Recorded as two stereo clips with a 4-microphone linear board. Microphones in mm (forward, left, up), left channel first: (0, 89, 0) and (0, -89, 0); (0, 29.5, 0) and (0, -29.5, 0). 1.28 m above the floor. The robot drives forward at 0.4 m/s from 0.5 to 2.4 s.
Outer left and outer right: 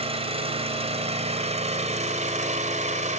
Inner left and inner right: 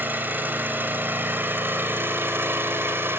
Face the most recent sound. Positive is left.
turn(degrees=-40)  # may be behind; listen again after turning